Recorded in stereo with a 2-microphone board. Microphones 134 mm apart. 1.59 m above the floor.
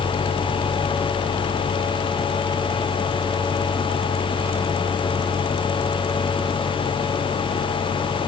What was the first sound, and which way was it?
Only background noise.